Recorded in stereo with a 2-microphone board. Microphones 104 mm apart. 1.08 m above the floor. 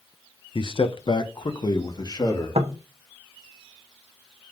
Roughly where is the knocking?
Right.